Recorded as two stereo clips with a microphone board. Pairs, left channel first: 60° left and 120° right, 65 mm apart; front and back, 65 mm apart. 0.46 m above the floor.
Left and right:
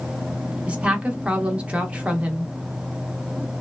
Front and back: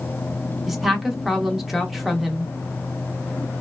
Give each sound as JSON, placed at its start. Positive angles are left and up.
{"t": 0.7, "sound": "a woman speaking", "azimuth_deg": -95, "distance_m": 0.7}